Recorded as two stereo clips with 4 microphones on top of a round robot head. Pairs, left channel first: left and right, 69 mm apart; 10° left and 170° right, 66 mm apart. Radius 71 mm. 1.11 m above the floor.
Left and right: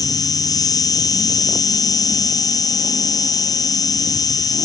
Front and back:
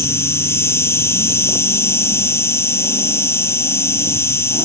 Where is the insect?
60° left.